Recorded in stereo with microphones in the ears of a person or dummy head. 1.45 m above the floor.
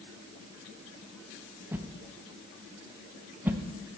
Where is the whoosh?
10° right (ahead or behind), 0.5 m.